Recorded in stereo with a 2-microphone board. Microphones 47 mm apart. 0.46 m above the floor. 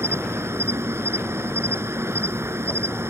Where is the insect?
65° right (ahead or behind).